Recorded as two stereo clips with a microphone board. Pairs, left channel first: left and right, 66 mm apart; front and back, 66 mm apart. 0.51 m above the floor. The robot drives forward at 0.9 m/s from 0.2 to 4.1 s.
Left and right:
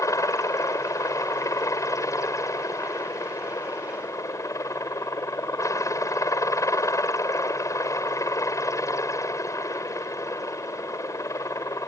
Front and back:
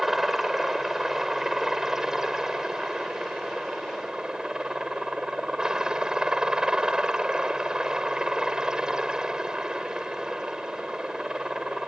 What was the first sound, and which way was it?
A helicopter, 95° left.